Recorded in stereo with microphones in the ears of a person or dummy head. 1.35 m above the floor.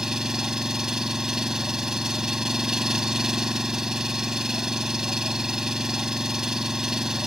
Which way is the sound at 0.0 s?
5° left (ahead or behind).